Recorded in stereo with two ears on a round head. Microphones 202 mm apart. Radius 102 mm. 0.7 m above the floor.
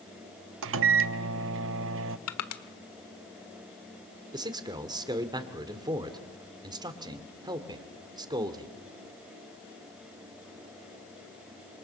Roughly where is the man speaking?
Right.